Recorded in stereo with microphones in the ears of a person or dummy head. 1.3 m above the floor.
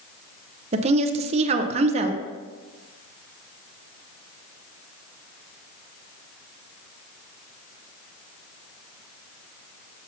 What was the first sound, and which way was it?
A woman speaking, 35° right (ahead or behind).